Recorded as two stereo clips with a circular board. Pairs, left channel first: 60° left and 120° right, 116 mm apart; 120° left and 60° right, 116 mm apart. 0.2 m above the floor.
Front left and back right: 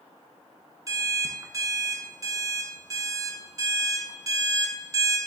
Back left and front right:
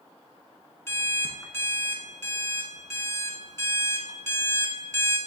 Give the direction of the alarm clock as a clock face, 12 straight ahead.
6 o'clock.